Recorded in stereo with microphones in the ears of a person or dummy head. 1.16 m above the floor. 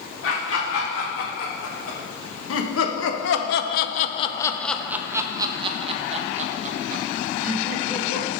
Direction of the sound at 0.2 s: 75° left (ahead or behind).